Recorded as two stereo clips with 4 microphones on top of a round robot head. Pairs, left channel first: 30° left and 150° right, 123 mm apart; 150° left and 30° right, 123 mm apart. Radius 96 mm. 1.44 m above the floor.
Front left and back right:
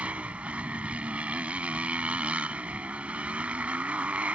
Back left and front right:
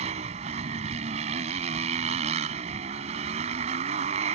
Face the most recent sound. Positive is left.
turn(degrees=-70)